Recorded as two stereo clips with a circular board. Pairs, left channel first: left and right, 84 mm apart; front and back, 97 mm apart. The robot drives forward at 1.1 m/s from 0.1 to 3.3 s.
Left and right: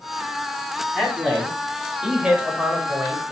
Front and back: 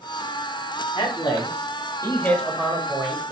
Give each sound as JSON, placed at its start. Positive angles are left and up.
{"t": 0.9, "sound": "a man speaking", "azimuth_deg": -5, "distance_m": 1.9}